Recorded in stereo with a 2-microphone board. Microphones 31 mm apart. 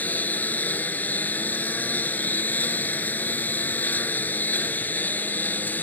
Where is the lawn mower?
70° left (ahead or behind); by 5.8 s 75° left (ahead or behind).